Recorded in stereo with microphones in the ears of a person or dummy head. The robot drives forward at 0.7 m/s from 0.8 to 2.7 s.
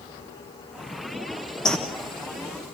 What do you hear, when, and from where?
1.6 s a bird: centre (ahead or behind), 1.2 m